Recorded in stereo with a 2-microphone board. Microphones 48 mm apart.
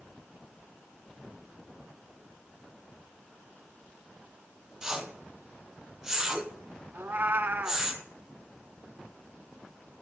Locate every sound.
4.8 s a whoosh: 10° right (ahead or behind), 1.0 m
6.9 s a cat meowing: 50° right (ahead or behind), 0.6 m